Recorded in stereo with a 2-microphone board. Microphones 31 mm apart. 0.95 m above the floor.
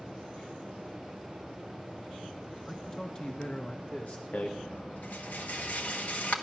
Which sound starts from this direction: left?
A rattle, at 4.3 s.